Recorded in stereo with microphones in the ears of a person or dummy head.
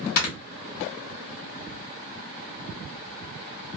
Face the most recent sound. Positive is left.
turn(degrees=55)  # may be behind; listen again after turning